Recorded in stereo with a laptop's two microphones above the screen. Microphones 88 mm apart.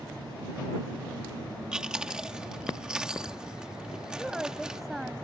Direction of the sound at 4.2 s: 5° right (ahead or behind).